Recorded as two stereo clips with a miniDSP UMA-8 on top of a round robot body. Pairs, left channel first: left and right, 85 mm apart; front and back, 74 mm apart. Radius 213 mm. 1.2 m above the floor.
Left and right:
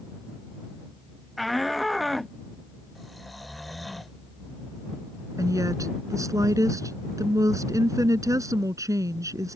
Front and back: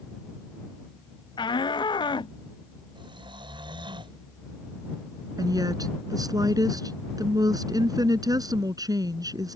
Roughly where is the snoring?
Behind.